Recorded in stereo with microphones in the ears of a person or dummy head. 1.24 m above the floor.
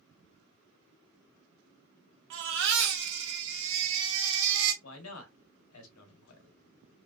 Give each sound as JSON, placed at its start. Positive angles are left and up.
{"t": 2.3, "sound": "a baby crying", "side_deg": -60, "distance_m": 1.1}
{"t": 4.8, "sound": "a man speaking", "side_deg": 80, "distance_m": 0.9}